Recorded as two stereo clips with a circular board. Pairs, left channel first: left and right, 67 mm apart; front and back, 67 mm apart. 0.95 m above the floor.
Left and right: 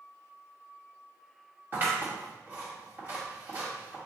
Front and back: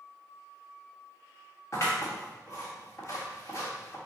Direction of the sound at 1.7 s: 35° right.